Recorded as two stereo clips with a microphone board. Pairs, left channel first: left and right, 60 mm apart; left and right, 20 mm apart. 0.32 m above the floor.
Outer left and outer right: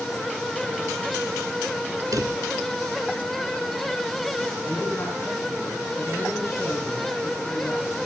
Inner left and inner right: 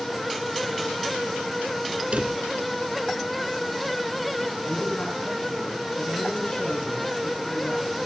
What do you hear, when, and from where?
2.1 s a drawer: 80° right, 2.0 m
4.7 s a man speaking: 45° left (ahead or behind), 3.5 m